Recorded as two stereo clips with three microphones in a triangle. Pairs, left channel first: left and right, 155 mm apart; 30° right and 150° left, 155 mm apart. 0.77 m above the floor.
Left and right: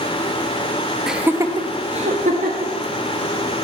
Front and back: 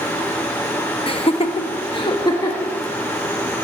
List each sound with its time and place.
1.1 s laughter: 5° right, 1.0 m; by 2.7 s 95° right, 1.6 m